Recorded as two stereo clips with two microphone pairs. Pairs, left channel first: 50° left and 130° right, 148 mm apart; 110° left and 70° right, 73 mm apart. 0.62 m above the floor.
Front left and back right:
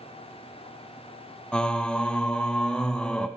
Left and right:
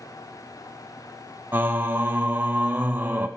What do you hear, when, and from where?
1.5 s singing: 40° right, 0.5 m